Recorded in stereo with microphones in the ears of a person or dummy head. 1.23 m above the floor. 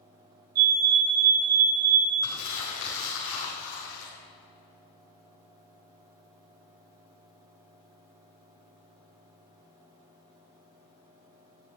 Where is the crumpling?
75° left (ahead or behind), 5 m.